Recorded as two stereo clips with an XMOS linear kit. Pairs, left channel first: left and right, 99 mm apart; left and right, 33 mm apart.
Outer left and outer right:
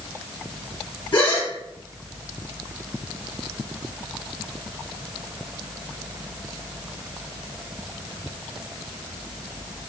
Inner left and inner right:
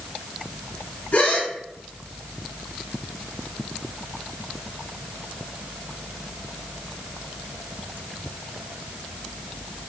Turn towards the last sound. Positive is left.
turn(degrees=60)  # may be behind; listen again after turning